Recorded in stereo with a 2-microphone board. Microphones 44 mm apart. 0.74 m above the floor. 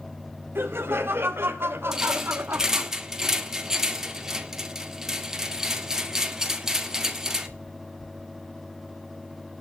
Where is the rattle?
10° right (ahead or behind), 1.7 m.